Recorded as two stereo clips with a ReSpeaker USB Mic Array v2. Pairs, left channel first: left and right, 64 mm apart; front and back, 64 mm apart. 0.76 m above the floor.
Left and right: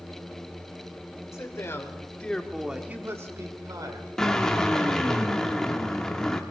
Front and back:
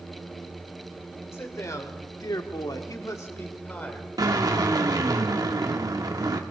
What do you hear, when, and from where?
1.3 s a man speaking: 45° left, 2.5 m; by 4.1 s 70° right, 2.5 m
4.2 s a drill: 170° left, 1.2 m